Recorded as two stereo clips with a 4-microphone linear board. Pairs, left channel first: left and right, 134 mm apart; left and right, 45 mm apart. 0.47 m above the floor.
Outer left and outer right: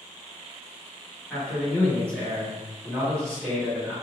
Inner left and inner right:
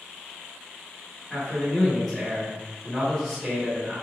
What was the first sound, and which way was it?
A man speaking, 5° left (ahead or behind).